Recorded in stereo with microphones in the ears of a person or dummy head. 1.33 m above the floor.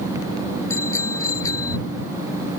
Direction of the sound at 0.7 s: 15° left (ahead or behind).